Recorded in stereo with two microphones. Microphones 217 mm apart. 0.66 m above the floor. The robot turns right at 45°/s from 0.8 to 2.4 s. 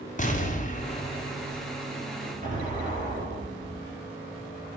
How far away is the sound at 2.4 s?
About 2.5 m.